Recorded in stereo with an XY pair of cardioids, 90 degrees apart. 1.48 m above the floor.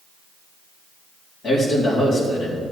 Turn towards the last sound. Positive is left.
turn(degrees=60)